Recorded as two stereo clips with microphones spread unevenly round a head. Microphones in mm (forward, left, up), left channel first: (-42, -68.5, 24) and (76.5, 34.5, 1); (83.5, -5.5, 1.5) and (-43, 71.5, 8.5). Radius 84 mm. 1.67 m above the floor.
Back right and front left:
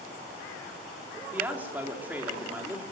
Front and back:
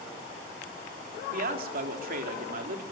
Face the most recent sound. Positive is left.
turn(degrees=125)